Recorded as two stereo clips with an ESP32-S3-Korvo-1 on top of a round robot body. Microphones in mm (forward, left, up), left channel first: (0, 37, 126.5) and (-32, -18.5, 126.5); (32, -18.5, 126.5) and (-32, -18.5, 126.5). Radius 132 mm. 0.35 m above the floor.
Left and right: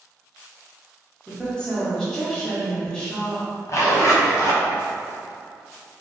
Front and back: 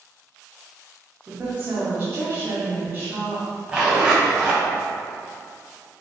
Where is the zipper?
105° left, 0.6 m.